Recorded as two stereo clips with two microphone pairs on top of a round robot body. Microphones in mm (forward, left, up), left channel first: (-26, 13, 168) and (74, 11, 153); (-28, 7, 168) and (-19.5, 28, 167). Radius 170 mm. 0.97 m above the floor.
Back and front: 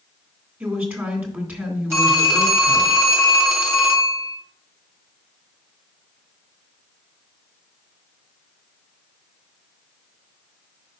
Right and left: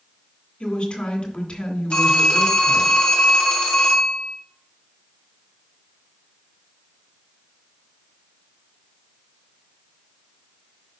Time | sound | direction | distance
0.6 | a woman speaking | 70° right | 2.5 m
1.9 | a phone ringing | 70° right | 1.9 m